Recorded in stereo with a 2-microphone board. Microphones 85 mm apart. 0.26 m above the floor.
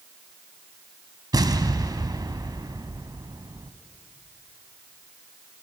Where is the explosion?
55° right (ahead or behind), 1.2 m.